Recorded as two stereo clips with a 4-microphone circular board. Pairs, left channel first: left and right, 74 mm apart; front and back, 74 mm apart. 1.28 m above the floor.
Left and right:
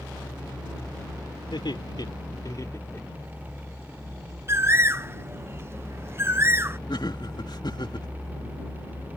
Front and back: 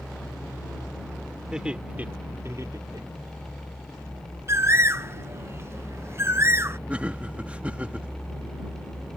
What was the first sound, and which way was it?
Laughter, 100° left.